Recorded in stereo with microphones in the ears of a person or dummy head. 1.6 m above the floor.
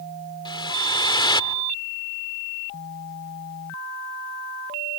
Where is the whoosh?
25° left (ahead or behind).